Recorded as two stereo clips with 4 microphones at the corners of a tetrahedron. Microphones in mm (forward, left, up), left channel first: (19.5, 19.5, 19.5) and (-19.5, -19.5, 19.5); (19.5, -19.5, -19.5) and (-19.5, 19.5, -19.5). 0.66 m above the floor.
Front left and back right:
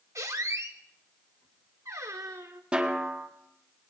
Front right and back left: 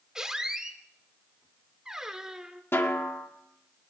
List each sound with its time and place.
0.1 s a squeak: 150° right, 1.1 m
2.7 s a snare drum: 70° right, 1.4 m